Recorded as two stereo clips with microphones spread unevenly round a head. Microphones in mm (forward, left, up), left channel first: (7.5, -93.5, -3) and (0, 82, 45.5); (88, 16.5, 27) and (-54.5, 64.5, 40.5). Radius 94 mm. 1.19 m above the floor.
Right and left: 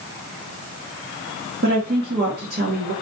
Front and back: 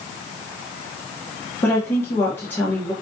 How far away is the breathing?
I don't hear breathing.